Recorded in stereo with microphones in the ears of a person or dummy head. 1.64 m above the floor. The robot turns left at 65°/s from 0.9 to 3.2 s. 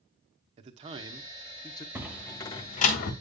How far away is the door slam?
About 1.4 m.